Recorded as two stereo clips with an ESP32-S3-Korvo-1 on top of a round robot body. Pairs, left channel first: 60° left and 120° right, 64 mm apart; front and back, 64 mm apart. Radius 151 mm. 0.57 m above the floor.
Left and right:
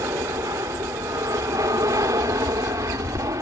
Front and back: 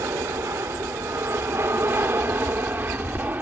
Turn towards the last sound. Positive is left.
turn(degrees=-120)